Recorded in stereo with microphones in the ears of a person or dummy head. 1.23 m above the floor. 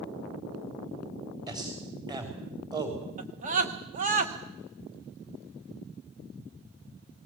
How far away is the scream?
About 1.2 m.